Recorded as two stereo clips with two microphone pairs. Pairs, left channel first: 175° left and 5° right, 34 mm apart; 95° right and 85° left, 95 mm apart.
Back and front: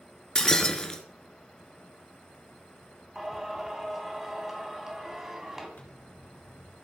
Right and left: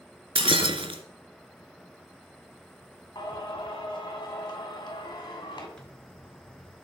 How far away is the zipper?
About 4 m.